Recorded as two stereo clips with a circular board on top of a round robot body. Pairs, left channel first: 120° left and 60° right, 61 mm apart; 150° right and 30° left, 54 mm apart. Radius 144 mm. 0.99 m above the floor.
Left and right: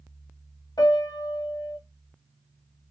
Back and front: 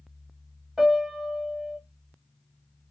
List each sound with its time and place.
0.8 s a piano: 110° left, 1.0 m